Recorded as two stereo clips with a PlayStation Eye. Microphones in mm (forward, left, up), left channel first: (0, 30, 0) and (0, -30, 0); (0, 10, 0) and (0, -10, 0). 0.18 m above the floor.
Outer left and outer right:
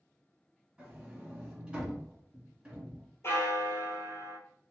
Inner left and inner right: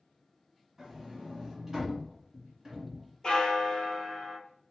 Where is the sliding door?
15° right (ahead or behind), 1.6 m.